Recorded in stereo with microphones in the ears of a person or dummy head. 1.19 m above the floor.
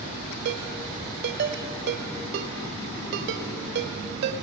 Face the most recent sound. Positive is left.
turn(degrees=-60)  # may be behind; listen again after turning